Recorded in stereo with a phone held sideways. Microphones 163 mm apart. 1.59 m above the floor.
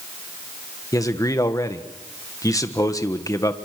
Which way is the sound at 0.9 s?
20° left (ahead or behind).